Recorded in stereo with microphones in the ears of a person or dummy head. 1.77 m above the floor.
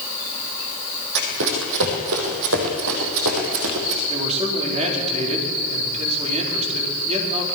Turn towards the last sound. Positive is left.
turn(degrees=-35)  # may be behind; listen again after turning